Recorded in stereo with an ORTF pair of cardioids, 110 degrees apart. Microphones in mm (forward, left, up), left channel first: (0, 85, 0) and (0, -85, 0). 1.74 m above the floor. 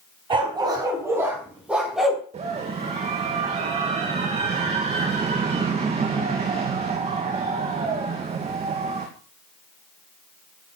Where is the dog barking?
30° right, 5 m; by 2.2 s straight ahead, 6 m.